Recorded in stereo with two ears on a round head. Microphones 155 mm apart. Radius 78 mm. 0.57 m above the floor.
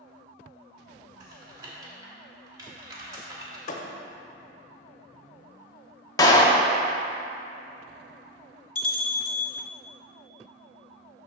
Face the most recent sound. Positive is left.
turn(degrees=55)  # may be behind; listen again after turning